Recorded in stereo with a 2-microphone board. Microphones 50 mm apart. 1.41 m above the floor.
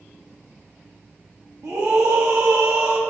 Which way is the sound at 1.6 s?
65° right (ahead or behind).